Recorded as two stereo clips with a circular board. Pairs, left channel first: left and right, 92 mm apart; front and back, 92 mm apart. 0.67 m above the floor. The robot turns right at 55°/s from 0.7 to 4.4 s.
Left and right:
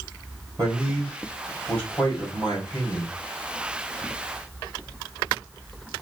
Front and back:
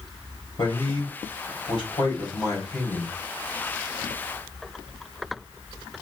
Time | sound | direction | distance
0.6 | a man speaking | 35° right | 3 m